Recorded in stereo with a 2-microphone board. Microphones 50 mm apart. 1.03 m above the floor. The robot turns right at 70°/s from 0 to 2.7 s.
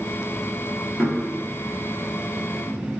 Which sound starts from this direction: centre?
Knocking, at 1.0 s.